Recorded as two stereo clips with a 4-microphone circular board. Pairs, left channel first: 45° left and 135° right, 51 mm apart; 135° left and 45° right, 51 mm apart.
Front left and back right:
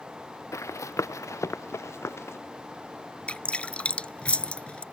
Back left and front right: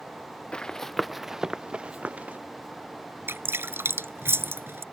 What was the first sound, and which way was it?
Running footsteps, 60° left.